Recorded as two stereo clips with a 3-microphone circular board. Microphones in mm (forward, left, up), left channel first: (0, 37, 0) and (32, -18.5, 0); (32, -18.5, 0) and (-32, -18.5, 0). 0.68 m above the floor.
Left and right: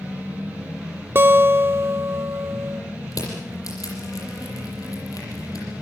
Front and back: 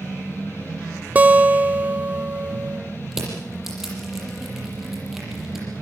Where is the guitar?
115° right, 0.7 m.